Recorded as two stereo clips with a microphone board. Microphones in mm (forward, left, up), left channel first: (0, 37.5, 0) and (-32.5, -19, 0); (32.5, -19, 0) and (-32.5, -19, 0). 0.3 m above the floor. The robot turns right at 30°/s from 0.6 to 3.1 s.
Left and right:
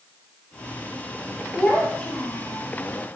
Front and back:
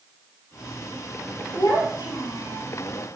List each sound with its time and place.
1.6 s a child speaking: 25° right, 4 m; by 2.7 s 10° left, 4 m